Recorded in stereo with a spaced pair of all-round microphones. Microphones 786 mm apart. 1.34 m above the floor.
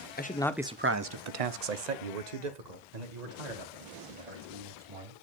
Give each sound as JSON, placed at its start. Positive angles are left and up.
{"t": 0.2, "sound": "a man speaking", "side_deg": 15, "distance_m": 0.8}